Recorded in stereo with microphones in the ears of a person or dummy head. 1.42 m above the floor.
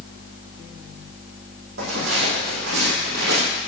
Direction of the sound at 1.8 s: 65° right (ahead or behind).